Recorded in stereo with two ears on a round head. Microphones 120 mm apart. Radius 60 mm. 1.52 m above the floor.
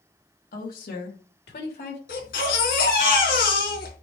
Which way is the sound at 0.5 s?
70° left (ahead or behind).